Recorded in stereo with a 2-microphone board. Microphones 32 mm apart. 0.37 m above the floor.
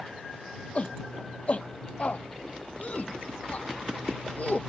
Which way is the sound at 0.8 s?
40° left (ahead or behind).